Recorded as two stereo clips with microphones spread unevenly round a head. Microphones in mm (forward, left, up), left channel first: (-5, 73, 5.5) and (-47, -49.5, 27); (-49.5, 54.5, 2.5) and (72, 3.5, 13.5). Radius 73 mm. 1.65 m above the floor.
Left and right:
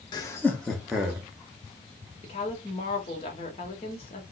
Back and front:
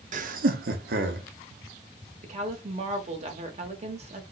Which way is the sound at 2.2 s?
20° left.